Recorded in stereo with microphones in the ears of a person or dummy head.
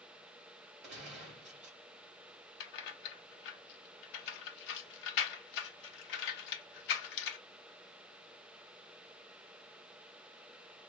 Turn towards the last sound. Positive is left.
turn(degrees=60)  # may be behind; listen again after turning